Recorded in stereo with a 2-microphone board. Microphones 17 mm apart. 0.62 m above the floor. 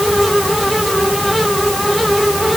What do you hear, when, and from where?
Only background noise.